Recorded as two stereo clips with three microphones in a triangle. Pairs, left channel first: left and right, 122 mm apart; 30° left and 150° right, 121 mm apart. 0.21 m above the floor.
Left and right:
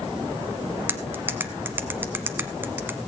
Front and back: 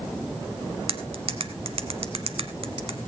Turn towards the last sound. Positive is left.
turn(degrees=-160)